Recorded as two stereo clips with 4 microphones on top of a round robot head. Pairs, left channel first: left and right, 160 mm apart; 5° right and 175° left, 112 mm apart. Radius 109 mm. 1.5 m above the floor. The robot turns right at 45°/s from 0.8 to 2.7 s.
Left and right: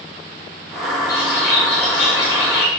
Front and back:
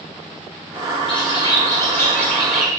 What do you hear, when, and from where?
1.1 s a bird: 20° left, 1.7 m; by 2.7 s 90° left, 1.7 m